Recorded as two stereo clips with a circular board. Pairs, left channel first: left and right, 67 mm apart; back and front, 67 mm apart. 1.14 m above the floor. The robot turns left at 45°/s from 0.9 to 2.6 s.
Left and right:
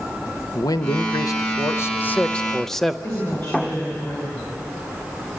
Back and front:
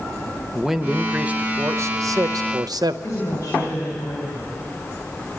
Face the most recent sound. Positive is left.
turn(degrees=135)